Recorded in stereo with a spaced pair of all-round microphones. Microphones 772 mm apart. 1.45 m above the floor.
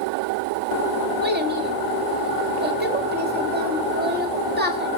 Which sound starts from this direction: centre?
A child speaking, at 1.2 s.